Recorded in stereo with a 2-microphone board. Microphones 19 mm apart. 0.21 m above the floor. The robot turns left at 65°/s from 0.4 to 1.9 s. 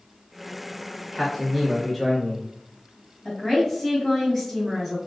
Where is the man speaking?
5° left (ahead or behind), 1.0 m; by 2.5 s 20° left (ahead or behind), 1.0 m.